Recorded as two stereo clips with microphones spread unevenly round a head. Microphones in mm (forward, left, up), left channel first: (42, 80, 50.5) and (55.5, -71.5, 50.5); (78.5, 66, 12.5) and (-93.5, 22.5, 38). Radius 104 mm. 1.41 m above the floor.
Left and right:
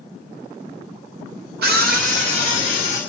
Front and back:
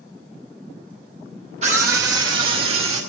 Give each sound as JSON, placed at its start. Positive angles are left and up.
{"t": 1.6, "sound": "a scream", "azimuth_deg": -105, "distance_m": 1.0}